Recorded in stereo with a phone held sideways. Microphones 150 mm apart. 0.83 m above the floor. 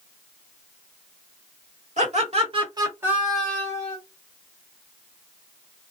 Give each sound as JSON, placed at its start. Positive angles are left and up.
{"t": 2.0, "sound": "laughter", "side_deg": -50, "distance_m": 1.5}